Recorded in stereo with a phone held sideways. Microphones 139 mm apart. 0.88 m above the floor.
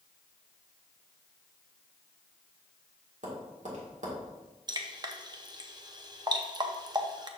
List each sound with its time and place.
3.2 s tapping: 60° right (ahead or behind), 1.8 m
4.7 s dripping: 30° right (ahead or behind), 0.6 m